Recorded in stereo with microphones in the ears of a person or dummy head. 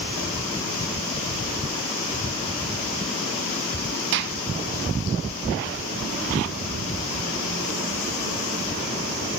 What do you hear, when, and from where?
4.1 s a gunshot: 65° right (ahead or behind), 0.9 m